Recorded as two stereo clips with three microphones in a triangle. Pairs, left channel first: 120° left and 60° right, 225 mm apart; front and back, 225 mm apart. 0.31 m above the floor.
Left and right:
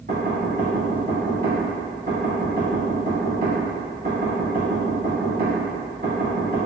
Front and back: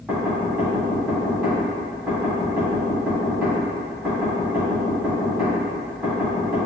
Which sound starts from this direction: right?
Knocking, at 0.1 s.